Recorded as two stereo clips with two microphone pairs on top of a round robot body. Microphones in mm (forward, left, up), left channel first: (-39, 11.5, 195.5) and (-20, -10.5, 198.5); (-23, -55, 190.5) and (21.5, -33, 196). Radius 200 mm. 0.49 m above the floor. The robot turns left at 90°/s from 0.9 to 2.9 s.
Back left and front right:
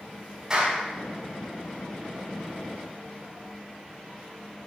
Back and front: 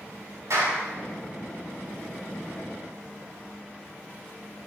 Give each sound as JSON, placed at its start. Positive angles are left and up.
{"t": 0.5, "sound": "a clap", "azimuth_deg": 20, "distance_m": 5.0}